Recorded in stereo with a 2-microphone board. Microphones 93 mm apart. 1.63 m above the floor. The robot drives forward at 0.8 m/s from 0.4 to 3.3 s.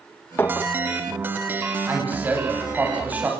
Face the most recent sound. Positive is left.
turn(degrees=-20)  # may be behind; listen again after turning